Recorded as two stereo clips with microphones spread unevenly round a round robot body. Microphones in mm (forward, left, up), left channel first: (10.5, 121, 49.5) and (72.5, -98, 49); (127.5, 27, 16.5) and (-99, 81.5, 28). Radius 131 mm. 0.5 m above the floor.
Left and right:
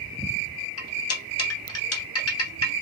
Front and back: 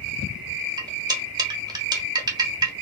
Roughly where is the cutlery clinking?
Left.